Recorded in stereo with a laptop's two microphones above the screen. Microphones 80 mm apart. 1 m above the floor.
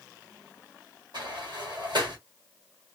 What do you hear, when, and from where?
1.1 s a sliding door: 70° right (ahead or behind), 1.7 m